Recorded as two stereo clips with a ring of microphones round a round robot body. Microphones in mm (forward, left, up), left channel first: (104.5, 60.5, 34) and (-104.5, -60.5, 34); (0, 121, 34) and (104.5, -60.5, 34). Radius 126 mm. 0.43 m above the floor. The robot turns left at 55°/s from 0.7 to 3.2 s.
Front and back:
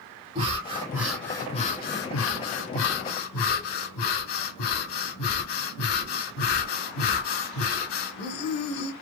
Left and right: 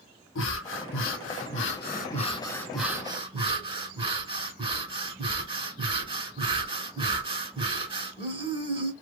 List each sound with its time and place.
0.3 s breathing: 145° left, 0.8 m; by 8.9 s 5° left, 0.8 m